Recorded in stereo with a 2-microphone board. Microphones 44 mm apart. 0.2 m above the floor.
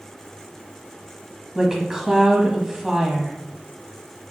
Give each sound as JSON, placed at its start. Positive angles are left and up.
{"t": 1.6, "sound": "a woman speaking", "side_deg": -15, "distance_m": 1.1}